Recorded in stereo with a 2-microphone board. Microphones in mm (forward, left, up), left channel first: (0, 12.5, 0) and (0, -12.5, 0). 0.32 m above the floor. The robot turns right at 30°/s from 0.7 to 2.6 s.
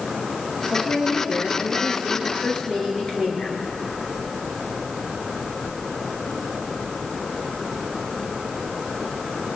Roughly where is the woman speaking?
Left.